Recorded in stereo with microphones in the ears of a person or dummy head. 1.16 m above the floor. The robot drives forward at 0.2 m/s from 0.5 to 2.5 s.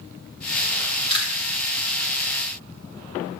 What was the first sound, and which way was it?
Chewing, 30° left (ahead or behind).